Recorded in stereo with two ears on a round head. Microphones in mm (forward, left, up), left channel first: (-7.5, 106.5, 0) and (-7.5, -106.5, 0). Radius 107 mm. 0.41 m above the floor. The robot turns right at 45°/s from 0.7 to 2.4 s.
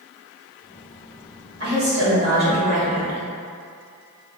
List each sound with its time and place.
1.6 s a woman speaking: 110° right, 1.6 m; by 3.2 s 75° right, 1.6 m